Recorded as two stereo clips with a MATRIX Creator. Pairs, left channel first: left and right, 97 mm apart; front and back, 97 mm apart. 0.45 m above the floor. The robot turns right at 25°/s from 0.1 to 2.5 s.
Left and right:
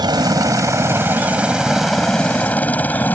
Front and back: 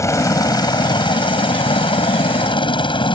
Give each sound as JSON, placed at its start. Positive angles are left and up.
{"t": 0.0, "sound": "a helicopter", "azimuth_deg": -55}